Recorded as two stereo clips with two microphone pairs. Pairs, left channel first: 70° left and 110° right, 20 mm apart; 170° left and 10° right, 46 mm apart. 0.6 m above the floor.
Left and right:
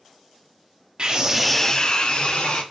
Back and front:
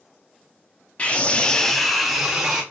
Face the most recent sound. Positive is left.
turn(degrees=70)